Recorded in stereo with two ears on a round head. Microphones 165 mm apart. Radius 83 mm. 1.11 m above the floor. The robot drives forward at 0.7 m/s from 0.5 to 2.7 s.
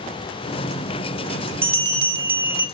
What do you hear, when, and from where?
1.6 s a bell: 10° right (ahead or behind), 2 m